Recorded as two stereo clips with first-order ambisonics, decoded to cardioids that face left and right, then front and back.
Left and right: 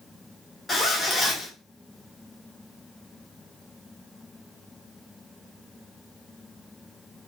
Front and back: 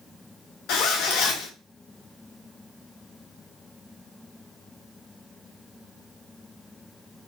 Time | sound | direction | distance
0.7 | a zipper | 10° left | 0.6 m